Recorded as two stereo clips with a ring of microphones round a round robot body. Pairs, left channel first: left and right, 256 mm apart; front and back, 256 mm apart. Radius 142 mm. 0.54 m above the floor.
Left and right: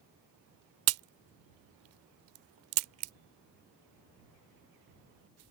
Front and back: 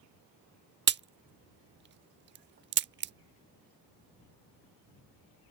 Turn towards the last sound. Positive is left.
turn(degrees=-130)